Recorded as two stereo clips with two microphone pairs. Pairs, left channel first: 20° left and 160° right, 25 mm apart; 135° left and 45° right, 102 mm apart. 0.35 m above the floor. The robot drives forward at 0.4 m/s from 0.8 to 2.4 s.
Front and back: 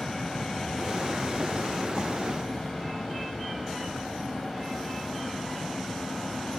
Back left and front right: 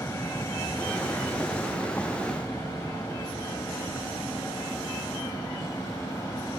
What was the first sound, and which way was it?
An aircraft, 80° left.